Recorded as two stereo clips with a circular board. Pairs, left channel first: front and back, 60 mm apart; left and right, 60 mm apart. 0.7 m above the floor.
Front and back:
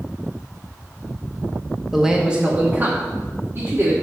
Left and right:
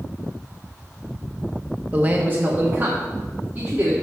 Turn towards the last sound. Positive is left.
turn(degrees=-145)